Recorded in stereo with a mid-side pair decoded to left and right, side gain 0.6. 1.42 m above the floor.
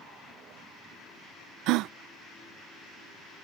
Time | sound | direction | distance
1.7 | a gasp | 70° right | ?